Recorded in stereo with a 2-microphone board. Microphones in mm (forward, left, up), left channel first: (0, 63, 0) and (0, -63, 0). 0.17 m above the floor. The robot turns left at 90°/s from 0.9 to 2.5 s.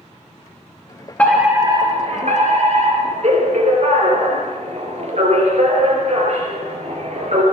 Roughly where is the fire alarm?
Ahead.